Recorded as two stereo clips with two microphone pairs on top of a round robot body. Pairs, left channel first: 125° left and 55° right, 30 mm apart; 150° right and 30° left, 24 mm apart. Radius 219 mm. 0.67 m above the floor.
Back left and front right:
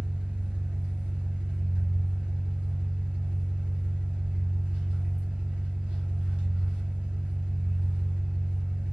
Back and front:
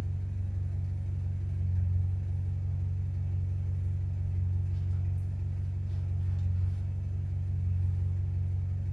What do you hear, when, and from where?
0.0 s an engine running: 95° right, 1.1 m